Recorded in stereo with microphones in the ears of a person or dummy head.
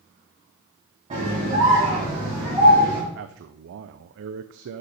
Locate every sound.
1.1 s a scream: 30° right (ahead or behind), 3.5 m; by 3.0 s 15° right (ahead or behind), 3 m
3.1 s a man speaking: 60° right (ahead or behind), 0.6 m